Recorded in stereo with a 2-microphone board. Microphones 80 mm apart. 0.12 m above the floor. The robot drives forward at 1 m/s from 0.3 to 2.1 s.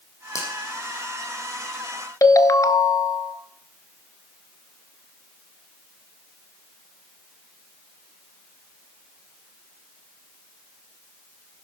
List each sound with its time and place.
0.3 s a finger snap: 40° left (ahead or behind), 4.5 m
2.2 s a ringtone: 45° left (ahead or behind), 0.8 m